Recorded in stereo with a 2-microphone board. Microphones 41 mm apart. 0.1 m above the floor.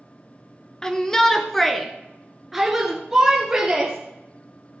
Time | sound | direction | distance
0.8 | a shout | 15° left (ahead or behind) | 1.2 m